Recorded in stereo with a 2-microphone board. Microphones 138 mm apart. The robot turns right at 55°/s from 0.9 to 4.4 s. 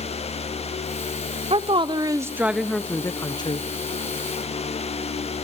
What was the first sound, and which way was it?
A woman speaking, 65° right.